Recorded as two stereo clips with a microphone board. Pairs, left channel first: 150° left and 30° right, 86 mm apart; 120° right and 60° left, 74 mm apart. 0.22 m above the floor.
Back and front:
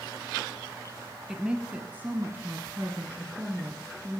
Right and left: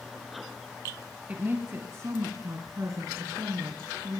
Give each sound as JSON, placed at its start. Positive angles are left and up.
{"t": 1.3, "sound": "a woman speaking", "azimuth_deg": 40, "distance_m": 1.0}